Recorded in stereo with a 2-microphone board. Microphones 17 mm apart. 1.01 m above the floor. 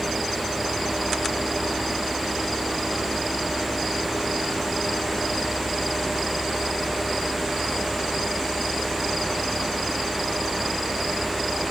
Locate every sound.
Only background noise.